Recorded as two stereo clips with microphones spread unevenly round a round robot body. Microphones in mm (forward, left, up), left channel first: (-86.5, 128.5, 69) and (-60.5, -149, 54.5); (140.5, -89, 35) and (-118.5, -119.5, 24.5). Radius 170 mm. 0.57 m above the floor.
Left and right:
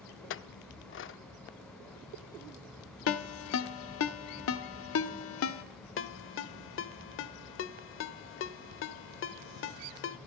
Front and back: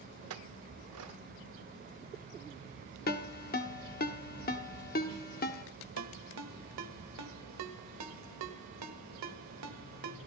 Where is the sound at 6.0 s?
145° left, 0.9 m.